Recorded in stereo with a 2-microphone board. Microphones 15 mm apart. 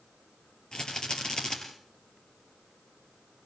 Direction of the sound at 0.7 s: 60° left (ahead or behind).